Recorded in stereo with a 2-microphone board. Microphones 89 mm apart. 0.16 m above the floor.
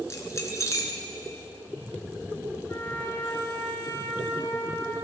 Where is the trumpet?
35° left (ahead or behind), 1.5 m.